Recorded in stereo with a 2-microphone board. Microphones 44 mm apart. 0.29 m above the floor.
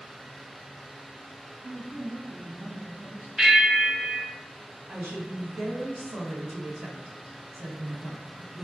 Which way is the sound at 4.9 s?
50° right (ahead or behind).